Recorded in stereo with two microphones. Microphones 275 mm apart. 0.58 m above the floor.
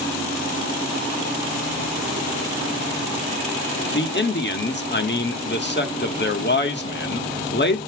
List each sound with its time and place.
3.9 s a man speaking: 40° left (ahead or behind), 1.3 m